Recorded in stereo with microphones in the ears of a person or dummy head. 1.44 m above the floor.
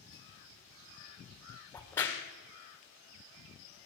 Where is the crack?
15° left (ahead or behind), 1.8 m.